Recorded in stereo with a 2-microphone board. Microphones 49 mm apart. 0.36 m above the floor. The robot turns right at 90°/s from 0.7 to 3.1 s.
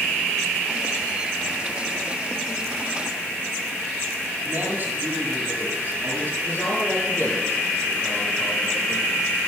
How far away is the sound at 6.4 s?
About 8.5 m.